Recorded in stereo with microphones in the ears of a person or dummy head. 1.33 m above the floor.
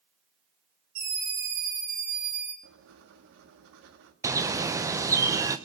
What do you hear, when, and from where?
0.9 s a scream: 75° right (ahead or behind), 6 m
2.6 s writing: 70° right (ahead or behind), 1.5 m
4.2 s a bird: 15° right (ahead or behind), 0.7 m